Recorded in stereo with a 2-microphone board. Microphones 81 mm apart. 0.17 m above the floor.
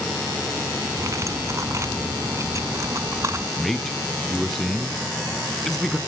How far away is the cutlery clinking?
About 0.9 m.